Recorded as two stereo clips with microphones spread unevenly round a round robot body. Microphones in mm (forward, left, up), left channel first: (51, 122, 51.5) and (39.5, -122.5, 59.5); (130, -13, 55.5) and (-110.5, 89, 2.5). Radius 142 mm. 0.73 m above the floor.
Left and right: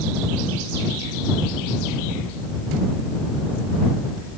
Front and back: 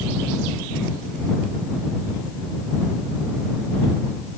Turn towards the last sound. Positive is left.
No sound to turn to.